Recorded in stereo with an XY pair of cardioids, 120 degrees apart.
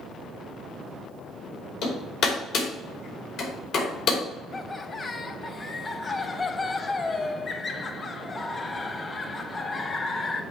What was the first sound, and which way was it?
Hammering, 65° left.